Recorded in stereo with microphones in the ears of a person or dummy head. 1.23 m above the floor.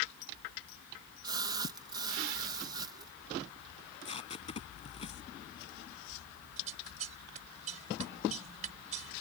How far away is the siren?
I don't hear a siren.